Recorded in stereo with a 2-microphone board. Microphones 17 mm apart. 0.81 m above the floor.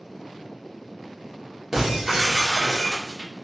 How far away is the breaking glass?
About 1.0 m.